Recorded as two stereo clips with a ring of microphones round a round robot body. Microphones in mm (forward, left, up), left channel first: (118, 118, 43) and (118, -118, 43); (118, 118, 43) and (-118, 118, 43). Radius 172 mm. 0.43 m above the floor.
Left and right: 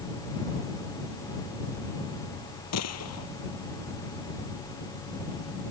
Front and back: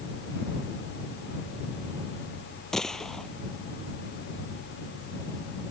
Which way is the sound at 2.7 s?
90° left.